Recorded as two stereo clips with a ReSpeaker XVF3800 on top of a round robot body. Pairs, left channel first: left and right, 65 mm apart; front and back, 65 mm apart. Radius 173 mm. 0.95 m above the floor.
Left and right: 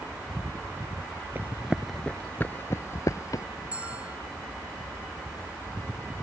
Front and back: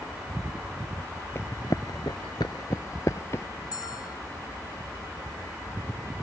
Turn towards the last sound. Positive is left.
turn(degrees=-20)